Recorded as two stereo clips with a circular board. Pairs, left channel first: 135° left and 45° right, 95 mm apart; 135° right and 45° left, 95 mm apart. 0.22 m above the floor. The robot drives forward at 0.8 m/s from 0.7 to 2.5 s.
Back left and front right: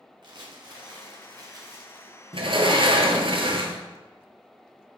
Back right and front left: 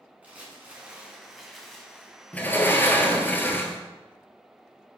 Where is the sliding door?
60° right, 1.0 m; by 3.8 s 65° right, 0.9 m.